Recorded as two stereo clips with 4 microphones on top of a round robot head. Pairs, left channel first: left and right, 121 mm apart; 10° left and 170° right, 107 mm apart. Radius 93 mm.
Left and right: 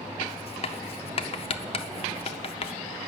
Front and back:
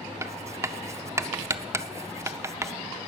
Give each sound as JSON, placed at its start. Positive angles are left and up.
{"t": 0.2, "sound": "writing", "azimuth_deg": 125, "distance_m": 0.6}